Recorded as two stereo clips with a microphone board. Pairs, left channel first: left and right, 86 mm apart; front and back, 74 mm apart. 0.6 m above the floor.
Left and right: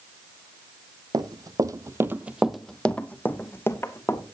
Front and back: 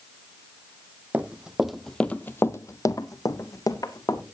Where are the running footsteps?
110° right, 1.1 m; by 4.2 s 35° left, 1.8 m.